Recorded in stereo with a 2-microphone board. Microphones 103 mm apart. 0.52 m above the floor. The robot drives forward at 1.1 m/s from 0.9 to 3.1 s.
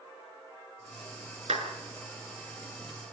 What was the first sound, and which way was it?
A clap, 80° right.